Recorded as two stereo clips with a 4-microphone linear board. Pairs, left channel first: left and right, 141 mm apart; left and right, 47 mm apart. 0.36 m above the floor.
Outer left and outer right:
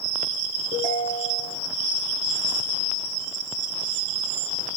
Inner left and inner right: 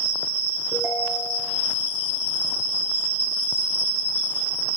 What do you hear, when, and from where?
0.7 s a ringtone: 60° right (ahead or behind), 8 m